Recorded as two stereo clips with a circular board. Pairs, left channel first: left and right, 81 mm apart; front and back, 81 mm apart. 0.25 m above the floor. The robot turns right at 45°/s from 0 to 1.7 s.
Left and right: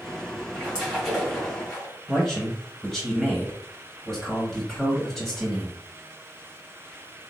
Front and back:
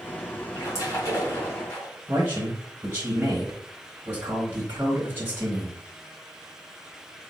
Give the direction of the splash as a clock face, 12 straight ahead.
1 o'clock.